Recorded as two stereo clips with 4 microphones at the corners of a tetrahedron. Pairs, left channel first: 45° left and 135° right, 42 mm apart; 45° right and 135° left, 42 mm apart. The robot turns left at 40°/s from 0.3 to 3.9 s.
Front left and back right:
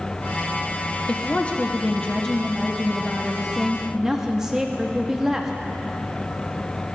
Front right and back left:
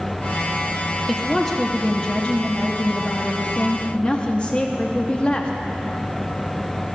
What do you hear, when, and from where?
1.1 s a woman speaking: 40° left, 0.8 m; by 5.5 s 70° right, 0.8 m